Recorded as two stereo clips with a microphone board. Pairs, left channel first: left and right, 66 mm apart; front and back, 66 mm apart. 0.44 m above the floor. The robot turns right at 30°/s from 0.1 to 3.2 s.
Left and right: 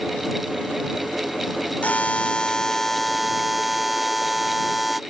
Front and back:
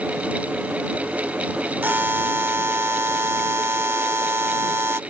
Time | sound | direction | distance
1.8 | a buzzer | 140° left | ?